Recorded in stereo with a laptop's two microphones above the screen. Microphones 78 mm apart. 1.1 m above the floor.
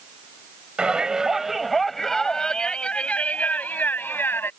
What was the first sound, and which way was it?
A shout, 10° right (ahead or behind).